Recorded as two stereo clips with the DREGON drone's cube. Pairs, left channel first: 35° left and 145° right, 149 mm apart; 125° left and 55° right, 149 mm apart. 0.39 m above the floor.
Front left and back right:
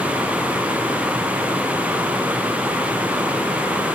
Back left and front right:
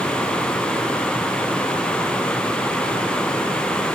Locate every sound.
Only background noise.